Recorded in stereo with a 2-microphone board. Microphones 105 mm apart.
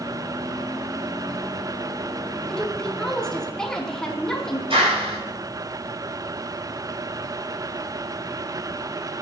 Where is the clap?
60° right (ahead or behind), 6.5 m.